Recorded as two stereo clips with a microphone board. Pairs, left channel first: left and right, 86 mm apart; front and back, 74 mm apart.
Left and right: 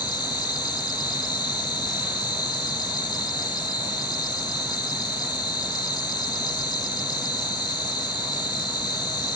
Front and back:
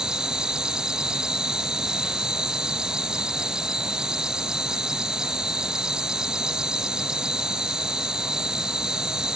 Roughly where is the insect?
Left.